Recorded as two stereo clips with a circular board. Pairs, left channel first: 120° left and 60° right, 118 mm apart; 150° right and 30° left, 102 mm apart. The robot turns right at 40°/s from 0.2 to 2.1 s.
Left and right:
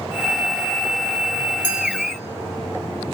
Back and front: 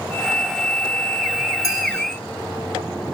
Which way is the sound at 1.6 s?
95° right.